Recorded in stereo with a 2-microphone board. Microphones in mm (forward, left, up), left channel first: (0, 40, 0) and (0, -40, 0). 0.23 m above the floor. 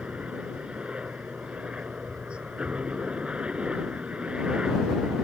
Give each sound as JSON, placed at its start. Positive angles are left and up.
{"t": 0.0, "sound": "a helicopter", "side_deg": -15}